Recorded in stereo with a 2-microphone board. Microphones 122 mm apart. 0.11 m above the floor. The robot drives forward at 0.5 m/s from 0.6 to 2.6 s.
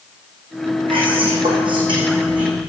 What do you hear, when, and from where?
0.9 s whispering: 45° right (ahead or behind), 6 m; by 2.6 s 40° right (ahead or behind), 6.5 m